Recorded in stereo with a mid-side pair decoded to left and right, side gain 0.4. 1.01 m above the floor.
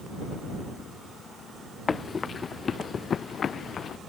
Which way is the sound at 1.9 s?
40° left.